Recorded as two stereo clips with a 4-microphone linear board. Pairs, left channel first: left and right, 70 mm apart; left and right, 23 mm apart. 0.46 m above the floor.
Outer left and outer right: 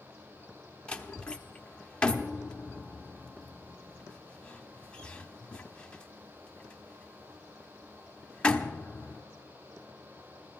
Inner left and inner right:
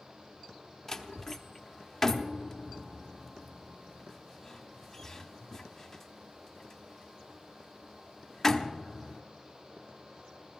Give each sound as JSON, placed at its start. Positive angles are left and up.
{"t": 0.9, "sound": "a door slam", "side_deg": 15, "distance_m": 0.9}